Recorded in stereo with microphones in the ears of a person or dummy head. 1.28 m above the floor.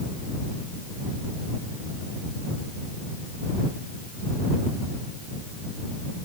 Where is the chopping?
I don't hear chopping.